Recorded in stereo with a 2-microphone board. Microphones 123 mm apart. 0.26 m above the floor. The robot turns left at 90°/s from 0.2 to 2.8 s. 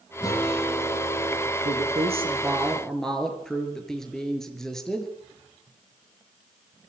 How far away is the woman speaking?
About 5 m.